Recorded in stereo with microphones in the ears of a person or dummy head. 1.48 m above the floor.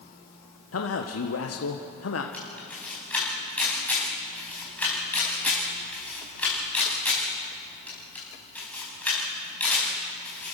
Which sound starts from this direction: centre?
A camera shutter, at 2.3 s.